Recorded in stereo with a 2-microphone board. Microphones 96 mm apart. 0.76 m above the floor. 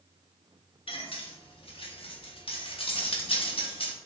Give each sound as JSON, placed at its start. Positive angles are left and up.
{"t": 0.9, "sound": "cutlery clinking", "side_deg": 70, "distance_m": 0.6}